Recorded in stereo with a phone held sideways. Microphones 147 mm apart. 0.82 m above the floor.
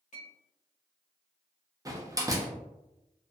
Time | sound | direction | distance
0.1 | a clink | 55° left (ahead or behind) | 1.0 m
1.9 | a door slam | 25° right (ahead or behind) | 0.5 m